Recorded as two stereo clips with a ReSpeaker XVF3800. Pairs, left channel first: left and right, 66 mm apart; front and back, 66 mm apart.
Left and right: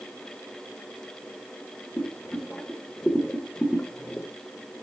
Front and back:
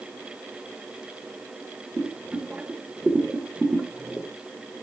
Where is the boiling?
135° left, 1.3 m.